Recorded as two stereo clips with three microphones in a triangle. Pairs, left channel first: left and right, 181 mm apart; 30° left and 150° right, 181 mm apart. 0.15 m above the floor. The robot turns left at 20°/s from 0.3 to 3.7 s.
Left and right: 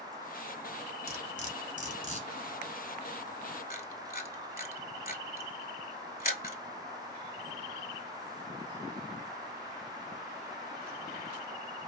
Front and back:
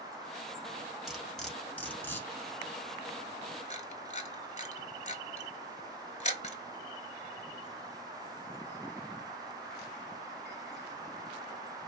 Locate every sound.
1.1 s cutlery clinking: 125° left, 1.0 m; by 2.3 s 100° left, 1.0 m
3.7 s a camera shutter: 70° left, 0.6 m